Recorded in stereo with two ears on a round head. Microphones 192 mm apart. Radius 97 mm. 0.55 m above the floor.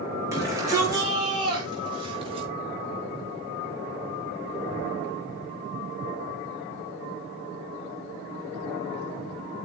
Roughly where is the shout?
Centre.